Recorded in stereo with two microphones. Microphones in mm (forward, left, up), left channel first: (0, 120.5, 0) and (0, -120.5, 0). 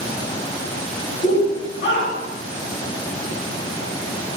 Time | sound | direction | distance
1.2 | a shout | 30° left (ahead or behind) | 1.3 m